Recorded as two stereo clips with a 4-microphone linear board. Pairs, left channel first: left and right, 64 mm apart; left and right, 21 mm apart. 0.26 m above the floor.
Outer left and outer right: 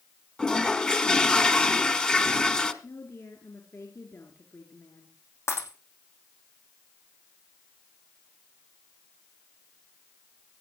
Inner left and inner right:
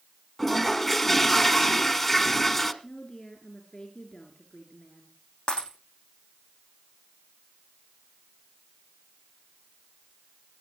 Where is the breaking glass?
50° left (ahead or behind), 6.5 m.